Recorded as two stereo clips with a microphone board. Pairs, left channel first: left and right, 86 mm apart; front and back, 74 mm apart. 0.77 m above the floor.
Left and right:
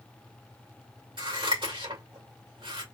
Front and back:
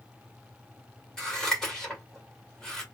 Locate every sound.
1.2 s scissors: 80° right, 2 m